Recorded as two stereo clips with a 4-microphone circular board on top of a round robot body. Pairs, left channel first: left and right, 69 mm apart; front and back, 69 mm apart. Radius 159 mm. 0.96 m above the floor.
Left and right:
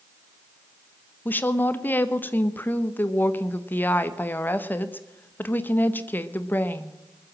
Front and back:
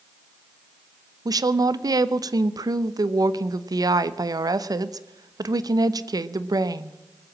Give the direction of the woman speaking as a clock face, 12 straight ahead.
7 o'clock.